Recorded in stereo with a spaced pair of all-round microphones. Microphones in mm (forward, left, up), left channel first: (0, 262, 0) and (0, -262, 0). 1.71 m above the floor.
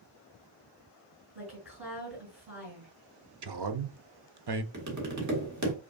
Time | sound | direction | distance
1.4 | a woman speaking | 50° right (ahead or behind) | 3 m
3.4 | a man speaking | 50° right (ahead or behind) | 0.5 m
4.7 | tapping | 35° right (ahead or behind) | 1.1 m